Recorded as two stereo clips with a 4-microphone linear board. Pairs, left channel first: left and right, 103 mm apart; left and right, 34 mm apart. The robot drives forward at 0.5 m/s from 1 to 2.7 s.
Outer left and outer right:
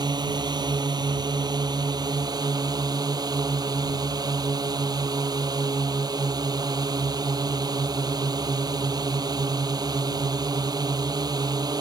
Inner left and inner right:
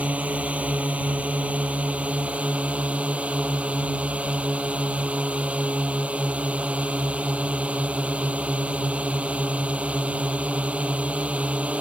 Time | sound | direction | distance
0.0 | a drone | 45° right (ahead or behind) | ?